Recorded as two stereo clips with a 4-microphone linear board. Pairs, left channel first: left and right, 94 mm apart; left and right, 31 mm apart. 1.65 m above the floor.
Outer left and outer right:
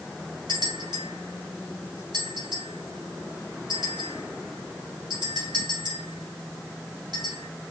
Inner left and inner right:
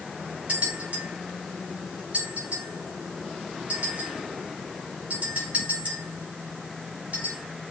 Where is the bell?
50° right (ahead or behind), 5 m.